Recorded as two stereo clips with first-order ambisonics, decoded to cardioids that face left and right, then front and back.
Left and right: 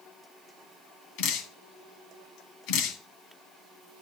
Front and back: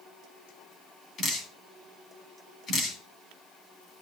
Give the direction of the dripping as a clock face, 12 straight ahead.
10 o'clock.